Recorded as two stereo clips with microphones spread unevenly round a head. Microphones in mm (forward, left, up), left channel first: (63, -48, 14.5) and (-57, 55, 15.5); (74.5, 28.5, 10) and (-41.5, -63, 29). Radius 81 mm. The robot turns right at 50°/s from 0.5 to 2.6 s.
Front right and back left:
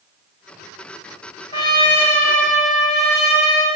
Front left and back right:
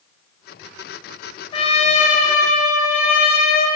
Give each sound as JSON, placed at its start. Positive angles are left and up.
{"t": 1.5, "sound": "a trumpet", "azimuth_deg": 0, "distance_m": 1.0}